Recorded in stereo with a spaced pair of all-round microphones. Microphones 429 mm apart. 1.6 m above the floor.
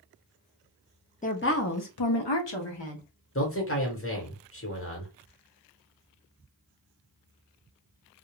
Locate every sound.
1.2 s a woman speaking: 20° left (ahead or behind), 0.6 m; by 3.0 s 80° left, 1.0 m
3.4 s a man speaking: 30° left (ahead or behind), 1.1 m